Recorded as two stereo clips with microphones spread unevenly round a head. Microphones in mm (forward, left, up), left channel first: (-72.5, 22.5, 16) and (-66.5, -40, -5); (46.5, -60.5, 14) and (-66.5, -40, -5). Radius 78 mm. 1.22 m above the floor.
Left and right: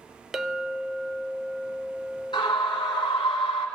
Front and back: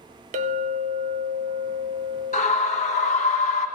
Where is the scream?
40° left, 1.1 m.